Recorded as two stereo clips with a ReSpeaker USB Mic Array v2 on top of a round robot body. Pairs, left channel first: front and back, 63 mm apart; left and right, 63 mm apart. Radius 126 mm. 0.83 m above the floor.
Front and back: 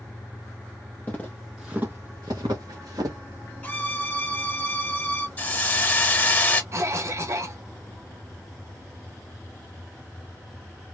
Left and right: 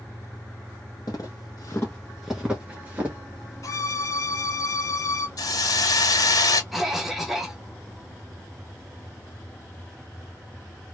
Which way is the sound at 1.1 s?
60° left.